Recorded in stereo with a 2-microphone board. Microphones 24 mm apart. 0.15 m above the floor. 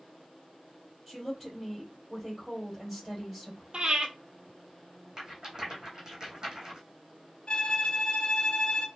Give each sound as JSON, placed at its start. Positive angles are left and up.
{"t": 1.1, "sound": "a woman speaking", "side_deg": -5, "distance_m": 3.5}
{"t": 3.7, "sound": "breathing", "side_deg": -50, "distance_m": 1.0}
{"t": 5.2, "sound": "a rattle", "side_deg": -35, "distance_m": 2.5}
{"t": 7.5, "sound": "a violin", "side_deg": 45, "distance_m": 0.9}